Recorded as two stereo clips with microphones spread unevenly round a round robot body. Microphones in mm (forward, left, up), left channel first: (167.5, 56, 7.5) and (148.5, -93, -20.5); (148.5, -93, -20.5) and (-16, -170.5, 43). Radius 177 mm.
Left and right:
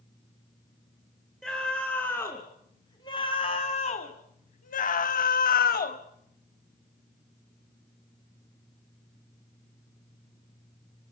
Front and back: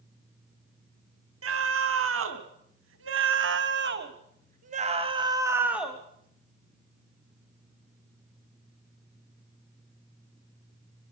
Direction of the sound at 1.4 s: 175° left.